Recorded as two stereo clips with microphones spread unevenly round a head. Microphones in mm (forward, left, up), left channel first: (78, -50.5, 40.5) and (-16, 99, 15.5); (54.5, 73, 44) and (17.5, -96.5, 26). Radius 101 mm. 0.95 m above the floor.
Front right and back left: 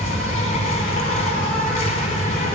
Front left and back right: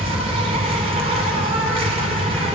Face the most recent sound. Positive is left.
turn(degrees=-100)